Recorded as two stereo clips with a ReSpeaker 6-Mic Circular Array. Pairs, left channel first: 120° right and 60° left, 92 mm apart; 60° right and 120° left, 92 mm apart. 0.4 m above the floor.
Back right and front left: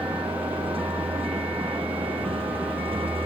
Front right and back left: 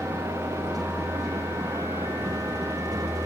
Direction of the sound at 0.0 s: 70° left.